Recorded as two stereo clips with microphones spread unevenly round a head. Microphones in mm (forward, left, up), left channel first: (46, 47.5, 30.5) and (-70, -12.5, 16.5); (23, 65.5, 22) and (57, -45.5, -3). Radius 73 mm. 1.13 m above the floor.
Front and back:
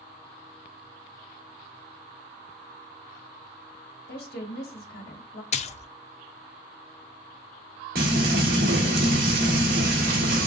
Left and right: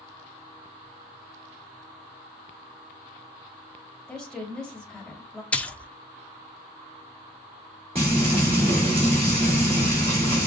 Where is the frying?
130° right, 2 m.